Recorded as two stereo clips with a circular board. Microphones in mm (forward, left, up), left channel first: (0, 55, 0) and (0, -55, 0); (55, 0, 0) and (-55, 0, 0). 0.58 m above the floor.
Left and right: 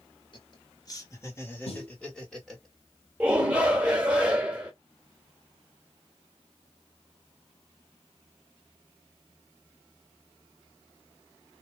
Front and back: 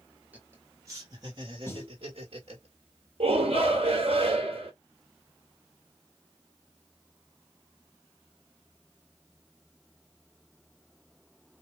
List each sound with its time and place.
0.3 s laughter: 110° left, 1.2 m; by 2.7 s 175° right, 1.5 m
1.7 s a snare drum: 65° left, 1.2 m
3.2 s a shout: 165° right, 1.6 m